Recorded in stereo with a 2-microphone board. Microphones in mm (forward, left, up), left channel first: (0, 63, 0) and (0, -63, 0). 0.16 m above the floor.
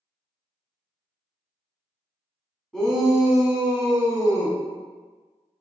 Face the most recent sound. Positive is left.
turn(degrees=-35)  # may be behind; listen again after turning